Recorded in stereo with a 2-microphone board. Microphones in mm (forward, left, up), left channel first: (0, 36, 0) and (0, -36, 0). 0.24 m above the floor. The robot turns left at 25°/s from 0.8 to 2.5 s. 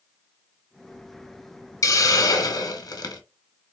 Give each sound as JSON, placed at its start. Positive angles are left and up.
{"t": 1.8, "sound": "a hiss", "side_deg": 45, "distance_m": 0.6}